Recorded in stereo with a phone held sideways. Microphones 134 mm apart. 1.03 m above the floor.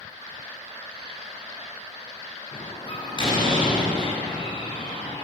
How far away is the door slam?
About 9.5 m.